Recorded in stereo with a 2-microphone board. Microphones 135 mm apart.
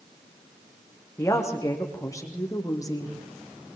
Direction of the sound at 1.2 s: 20° left (ahead or behind).